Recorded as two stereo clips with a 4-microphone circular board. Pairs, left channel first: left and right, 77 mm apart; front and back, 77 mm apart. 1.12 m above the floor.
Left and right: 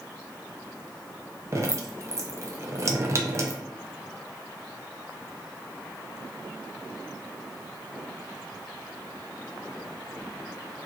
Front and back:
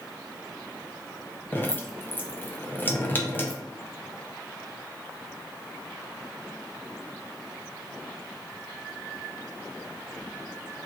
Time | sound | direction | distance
1.5 | dripping | 55° right | 0.5 m